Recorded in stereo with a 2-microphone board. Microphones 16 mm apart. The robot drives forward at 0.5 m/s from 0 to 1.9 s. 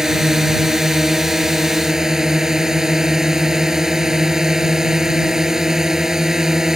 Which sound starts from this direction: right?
A drone, at 0.0 s.